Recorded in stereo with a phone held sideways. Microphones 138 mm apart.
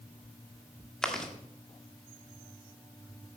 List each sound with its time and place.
1.0 s chewing: 5° left (ahead or behind), 1.5 m